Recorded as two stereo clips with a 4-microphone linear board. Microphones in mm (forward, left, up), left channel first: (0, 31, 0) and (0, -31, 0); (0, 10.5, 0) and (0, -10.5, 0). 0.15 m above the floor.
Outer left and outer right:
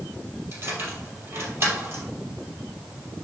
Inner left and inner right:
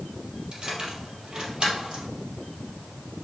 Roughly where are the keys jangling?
Right.